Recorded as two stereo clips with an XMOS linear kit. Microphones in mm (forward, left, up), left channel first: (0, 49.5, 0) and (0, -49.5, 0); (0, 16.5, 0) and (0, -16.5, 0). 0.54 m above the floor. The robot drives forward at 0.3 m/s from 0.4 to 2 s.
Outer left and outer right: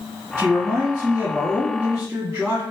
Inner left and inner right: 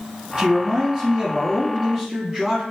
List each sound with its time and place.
0.4 s a man speaking: 30° right (ahead or behind), 1.6 m; by 2.6 s 25° right (ahead or behind), 2.0 m